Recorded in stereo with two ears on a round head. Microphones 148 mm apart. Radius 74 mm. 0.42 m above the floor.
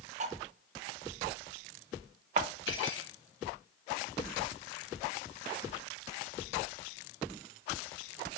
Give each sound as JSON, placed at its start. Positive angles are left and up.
{"t": 0.2, "sound": "cutlery clinking", "side_deg": -45, "distance_m": 0.7}
{"t": 2.7, "sound": "cutlery clinking", "side_deg": 80, "distance_m": 2.5}